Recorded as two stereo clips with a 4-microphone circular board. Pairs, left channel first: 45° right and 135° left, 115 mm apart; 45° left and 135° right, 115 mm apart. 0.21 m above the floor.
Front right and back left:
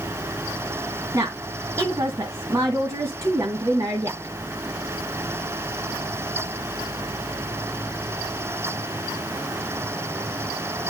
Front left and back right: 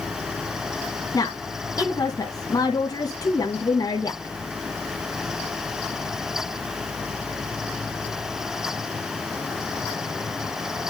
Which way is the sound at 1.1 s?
85° left.